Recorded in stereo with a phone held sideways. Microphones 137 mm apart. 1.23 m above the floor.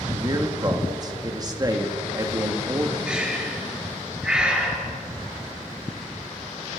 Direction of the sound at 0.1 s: 30° right (ahead or behind).